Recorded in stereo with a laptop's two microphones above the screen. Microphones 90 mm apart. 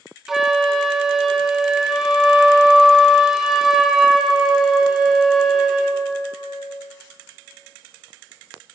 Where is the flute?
5° right (ahead or behind), 0.6 m.